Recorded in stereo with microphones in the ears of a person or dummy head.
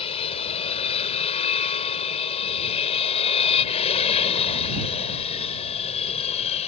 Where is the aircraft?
30° left (ahead or behind).